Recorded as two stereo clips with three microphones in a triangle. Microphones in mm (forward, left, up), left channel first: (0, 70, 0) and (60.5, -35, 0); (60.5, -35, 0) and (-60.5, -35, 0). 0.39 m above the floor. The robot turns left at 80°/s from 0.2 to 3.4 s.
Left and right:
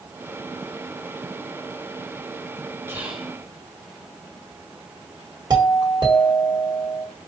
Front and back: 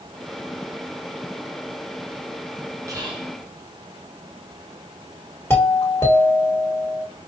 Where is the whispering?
125° right, 1.3 m; by 3.3 s 160° right, 1.3 m.